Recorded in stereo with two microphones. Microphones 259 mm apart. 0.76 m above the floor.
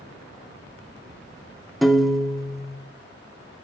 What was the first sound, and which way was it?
A piano, centre (ahead or behind).